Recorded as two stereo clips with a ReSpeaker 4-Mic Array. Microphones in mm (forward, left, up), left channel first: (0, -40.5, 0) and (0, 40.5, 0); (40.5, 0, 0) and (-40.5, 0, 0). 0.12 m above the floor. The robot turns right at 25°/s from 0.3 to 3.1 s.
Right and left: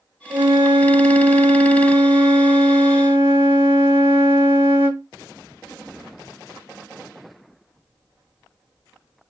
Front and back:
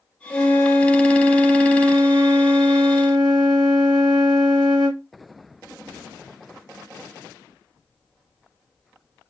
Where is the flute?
80° left, 1.5 m; by 5.0 s 150° left, 1.5 m.